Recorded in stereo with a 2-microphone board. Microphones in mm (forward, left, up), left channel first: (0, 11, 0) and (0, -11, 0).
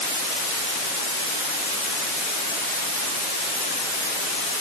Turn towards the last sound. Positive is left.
No sound to turn to.